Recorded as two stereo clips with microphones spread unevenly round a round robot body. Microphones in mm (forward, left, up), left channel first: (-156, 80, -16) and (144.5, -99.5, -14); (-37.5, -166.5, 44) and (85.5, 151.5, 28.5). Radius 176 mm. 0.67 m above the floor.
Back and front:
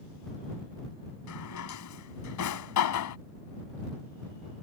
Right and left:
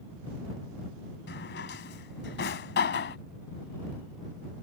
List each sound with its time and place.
1.3 s a drawer: 170° right